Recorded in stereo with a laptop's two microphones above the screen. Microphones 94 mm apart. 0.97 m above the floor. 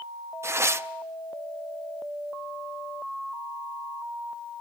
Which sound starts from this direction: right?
Tearing paper, at 0.4 s.